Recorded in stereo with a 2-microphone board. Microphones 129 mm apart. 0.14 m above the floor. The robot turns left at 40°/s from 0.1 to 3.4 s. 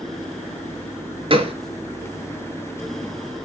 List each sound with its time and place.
1.3 s a gunshot: 45° right (ahead or behind), 1.1 m; by 1.5 s 50° right (ahead or behind), 1.1 m